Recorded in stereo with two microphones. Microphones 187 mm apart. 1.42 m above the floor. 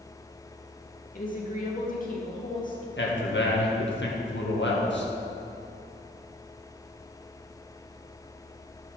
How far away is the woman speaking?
About 2.0 m.